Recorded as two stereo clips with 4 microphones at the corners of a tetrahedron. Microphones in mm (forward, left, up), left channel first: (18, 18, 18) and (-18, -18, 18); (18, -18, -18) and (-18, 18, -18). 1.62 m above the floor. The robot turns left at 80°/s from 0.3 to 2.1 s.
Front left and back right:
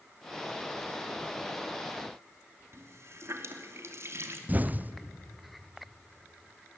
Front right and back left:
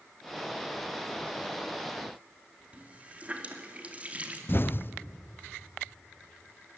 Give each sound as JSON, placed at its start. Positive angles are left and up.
{"t": 2.7, "sound": "a running tap", "azimuth_deg": -160, "distance_m": 2.5}
{"t": 4.5, "sound": "an explosion", "azimuth_deg": -85, "distance_m": 0.6}